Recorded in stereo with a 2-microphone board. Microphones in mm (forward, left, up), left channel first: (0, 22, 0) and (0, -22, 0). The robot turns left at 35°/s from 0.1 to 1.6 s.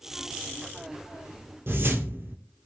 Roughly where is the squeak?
I don't hear a squeak.